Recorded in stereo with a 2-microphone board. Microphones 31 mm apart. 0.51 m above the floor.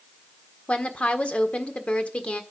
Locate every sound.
0.7 s a woman speaking: 45° left (ahead or behind), 1.5 m